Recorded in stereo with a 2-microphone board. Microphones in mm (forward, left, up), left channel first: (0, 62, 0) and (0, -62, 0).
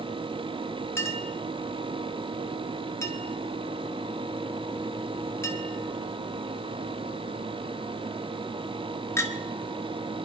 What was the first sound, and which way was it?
A clink, 20° left (ahead or behind).